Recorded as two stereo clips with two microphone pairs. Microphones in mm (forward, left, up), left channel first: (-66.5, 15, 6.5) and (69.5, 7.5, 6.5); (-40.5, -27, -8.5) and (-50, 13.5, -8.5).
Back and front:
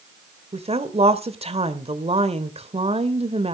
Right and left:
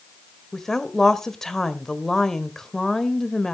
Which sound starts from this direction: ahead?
A woman speaking, at 0.5 s.